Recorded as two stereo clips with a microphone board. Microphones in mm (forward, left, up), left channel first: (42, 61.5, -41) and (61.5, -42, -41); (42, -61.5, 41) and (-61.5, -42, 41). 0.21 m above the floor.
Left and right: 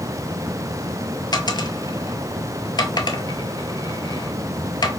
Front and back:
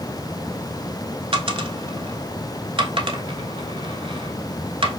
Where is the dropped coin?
145° left, 0.6 m.